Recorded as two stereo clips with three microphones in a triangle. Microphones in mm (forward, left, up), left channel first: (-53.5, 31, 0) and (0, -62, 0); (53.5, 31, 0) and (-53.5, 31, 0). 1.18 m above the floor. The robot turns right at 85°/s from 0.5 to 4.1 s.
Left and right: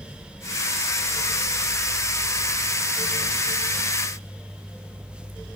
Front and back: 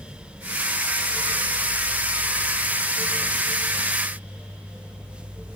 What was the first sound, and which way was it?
Only background noise.